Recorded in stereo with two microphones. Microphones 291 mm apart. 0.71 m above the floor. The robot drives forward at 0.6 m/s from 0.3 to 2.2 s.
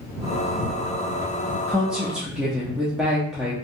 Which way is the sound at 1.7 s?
5° right (ahead or behind).